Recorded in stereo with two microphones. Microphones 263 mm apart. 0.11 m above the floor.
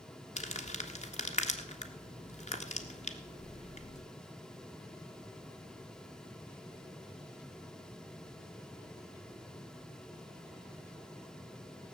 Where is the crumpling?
25° left (ahead or behind), 1.5 m.